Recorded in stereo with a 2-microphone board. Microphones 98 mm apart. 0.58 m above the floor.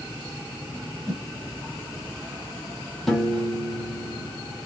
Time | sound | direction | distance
1.1 | a whoosh | 40° right (ahead or behind) | 1.4 m
3.1 | a piano | 5° left (ahead or behind) | 1.0 m